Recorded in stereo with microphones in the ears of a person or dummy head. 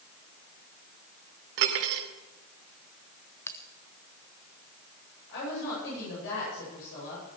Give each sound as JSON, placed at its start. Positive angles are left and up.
{"t": 1.6, "sound": "cutlery clinking", "side_deg": -60, "distance_m": 3.0}
{"t": 3.5, "sound": "a bell", "side_deg": 10, "distance_m": 0.9}
{"t": 5.3, "sound": "a woman speaking", "side_deg": 70, "distance_m": 10.0}